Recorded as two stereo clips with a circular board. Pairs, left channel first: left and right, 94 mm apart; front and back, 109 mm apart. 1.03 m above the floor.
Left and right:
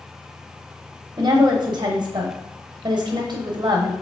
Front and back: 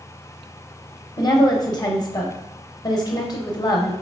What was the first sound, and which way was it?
A woman speaking, 50° right.